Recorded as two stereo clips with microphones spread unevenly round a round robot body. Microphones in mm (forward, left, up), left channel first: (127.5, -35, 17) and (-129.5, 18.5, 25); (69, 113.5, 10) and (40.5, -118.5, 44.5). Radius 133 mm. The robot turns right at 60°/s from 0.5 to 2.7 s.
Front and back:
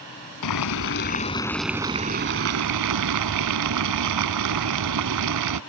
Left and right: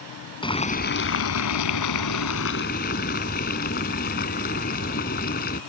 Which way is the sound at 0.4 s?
10° left.